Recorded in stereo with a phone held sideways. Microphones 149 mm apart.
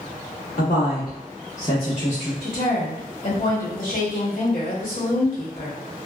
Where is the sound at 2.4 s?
65° left (ahead or behind), 1.4 m.